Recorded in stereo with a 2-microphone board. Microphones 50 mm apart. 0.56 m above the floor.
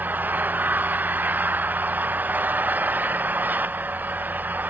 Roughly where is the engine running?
Right.